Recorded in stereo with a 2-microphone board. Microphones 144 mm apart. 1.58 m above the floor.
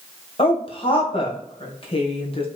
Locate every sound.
0.4 s a woman speaking: 45° left (ahead or behind), 1.4 m